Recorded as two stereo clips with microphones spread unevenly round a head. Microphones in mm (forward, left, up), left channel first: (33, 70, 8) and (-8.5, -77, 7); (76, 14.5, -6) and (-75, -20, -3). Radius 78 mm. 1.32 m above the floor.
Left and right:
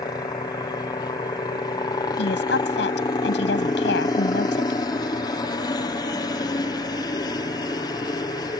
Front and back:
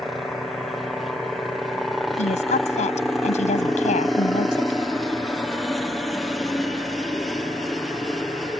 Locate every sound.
0.0 s a helicopter: 100° left
2.2 s a woman speaking: 60° left